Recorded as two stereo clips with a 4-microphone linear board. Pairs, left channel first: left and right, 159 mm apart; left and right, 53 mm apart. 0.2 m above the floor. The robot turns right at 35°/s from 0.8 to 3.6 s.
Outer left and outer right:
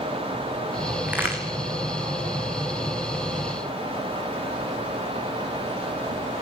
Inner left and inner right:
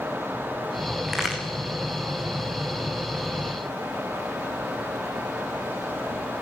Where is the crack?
5° right (ahead or behind), 4 m; by 1.4 s 20° right (ahead or behind), 4 m.